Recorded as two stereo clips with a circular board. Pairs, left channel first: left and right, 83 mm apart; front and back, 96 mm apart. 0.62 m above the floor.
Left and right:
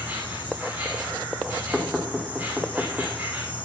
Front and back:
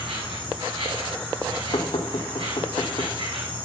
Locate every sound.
0.0 s an insect: 160° right, 6 m
1.7 s knocking: 5° right, 1.2 m